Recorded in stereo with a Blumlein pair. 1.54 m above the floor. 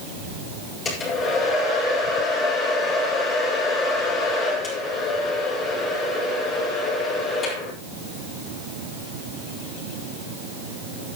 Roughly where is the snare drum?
I don't hear a snare drum.